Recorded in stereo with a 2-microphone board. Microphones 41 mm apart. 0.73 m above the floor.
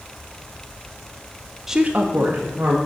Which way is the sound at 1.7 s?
10° right (ahead or behind).